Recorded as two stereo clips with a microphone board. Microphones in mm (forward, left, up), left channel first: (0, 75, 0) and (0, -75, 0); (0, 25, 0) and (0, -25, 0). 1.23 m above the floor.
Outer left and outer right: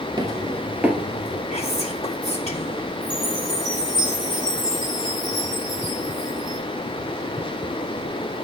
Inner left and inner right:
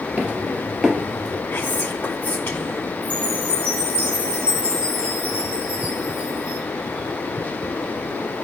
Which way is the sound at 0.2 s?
30° right (ahead or behind).